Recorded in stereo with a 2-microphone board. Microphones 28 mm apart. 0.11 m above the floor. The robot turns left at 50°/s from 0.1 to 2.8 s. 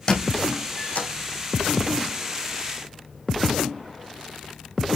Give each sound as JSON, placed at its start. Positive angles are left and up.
{"t": 0.1, "sound": "a squeak", "side_deg": 35, "distance_m": 3.5}